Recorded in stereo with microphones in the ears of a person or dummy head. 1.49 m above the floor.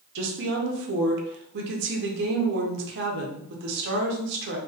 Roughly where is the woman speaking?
Right.